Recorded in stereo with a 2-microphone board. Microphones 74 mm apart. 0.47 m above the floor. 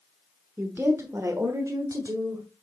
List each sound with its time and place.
0.6 s a woman speaking: 25° right (ahead or behind), 1.1 m; by 2.5 s 55° right (ahead or behind), 1.9 m